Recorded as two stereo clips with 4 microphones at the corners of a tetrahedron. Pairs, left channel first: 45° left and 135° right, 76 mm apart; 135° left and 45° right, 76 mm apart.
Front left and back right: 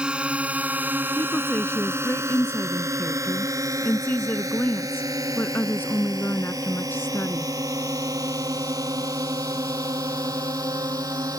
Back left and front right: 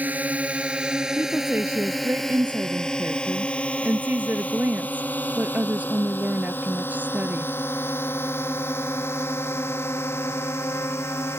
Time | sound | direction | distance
0.0 | a drone | 75° right | ?
1.2 | a woman speaking | 5° left | ?